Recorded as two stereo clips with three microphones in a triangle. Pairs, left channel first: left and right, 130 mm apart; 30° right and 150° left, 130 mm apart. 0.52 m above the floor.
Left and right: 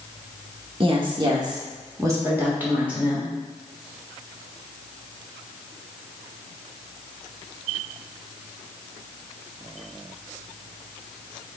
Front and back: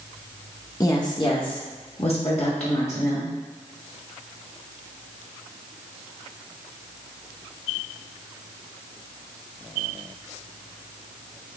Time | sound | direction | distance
0.8 | a woman speaking | 75° right | 0.9 m